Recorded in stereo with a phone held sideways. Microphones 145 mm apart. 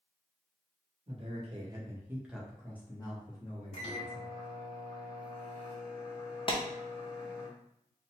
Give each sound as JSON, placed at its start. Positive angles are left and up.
{"t": 1.1, "sound": "a man speaking", "side_deg": -45, "distance_m": 1.1}
{"t": 3.7, "sound": "a microwave", "side_deg": 45, "distance_m": 0.8}
{"t": 6.5, "sound": "a clap", "side_deg": 35, "distance_m": 0.7}